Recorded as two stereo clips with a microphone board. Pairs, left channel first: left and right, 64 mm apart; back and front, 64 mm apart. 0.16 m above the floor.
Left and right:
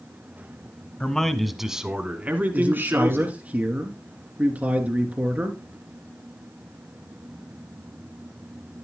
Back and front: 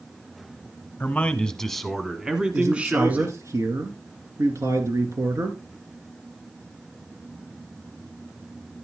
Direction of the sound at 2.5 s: 30° right.